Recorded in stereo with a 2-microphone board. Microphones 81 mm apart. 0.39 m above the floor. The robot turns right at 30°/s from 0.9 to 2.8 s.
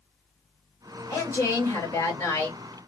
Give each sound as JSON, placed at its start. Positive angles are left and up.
{"t": 1.1, "sound": "a woman speaking", "azimuth_deg": 125, "distance_m": 1.8}